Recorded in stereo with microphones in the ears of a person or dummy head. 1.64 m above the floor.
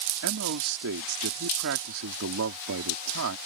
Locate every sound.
0.2 s a man speaking: 65° right (ahead or behind)